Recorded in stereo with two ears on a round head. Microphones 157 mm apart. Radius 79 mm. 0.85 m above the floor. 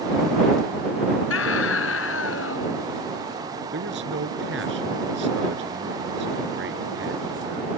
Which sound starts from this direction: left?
A scream, at 1.3 s.